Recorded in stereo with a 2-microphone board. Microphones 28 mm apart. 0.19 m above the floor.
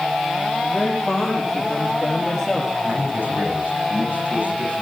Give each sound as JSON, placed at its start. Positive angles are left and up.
{"t": 0.6, "sound": "a man speaking", "side_deg": 10, "distance_m": 6.5}
{"t": 2.8, "sound": "a man speaking", "side_deg": -75, "distance_m": 9.5}